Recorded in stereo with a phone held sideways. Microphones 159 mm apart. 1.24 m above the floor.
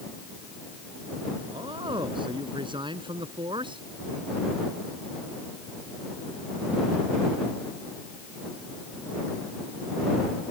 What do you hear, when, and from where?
1.4 s a man speaking: 30° right (ahead or behind)